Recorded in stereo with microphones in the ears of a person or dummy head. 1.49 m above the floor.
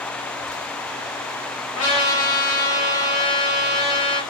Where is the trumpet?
30° left (ahead or behind), 1.0 m.